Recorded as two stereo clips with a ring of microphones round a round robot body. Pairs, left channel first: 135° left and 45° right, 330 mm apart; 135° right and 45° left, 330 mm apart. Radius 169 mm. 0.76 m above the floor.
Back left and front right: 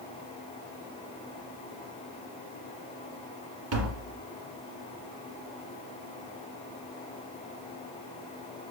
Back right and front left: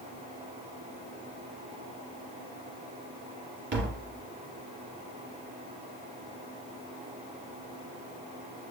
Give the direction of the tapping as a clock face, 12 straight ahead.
12 o'clock.